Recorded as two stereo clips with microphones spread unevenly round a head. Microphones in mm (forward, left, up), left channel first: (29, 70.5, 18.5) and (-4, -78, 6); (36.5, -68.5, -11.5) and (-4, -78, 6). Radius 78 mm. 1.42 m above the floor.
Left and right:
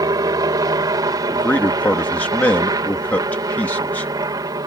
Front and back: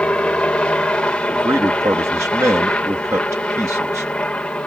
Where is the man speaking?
160° left.